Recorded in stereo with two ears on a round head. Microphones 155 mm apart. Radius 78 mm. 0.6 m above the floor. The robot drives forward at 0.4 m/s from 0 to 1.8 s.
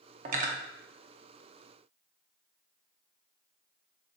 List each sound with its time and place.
0.2 s cutlery clinking: 45° right (ahead or behind), 0.5 m